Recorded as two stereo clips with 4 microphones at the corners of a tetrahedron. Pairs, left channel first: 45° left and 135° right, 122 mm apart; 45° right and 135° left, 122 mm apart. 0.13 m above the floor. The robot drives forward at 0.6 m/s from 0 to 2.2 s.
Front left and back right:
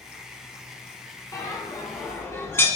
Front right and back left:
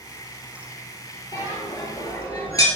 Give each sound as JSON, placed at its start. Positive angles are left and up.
{"t": 1.3, "sound": "a bell", "azimuth_deg": -5, "distance_m": 2.0}